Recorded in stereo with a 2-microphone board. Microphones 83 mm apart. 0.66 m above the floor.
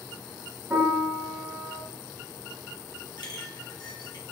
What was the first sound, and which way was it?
A piano, 25° right (ahead or behind).